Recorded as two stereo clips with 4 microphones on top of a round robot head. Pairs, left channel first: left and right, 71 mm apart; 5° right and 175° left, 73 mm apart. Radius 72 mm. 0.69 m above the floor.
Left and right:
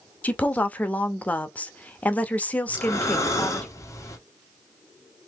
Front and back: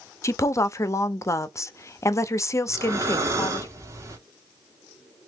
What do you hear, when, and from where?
0.2 s a woman speaking: 30° left, 0.6 m
2.7 s breathing: 135° left, 1.2 m